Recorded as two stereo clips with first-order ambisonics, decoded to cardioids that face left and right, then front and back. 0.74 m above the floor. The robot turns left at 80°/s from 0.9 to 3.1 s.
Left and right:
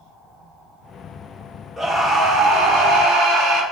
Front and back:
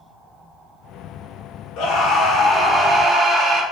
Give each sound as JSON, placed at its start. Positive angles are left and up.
{"t": 1.8, "sound": "a scream", "azimuth_deg": -5, "distance_m": 0.9}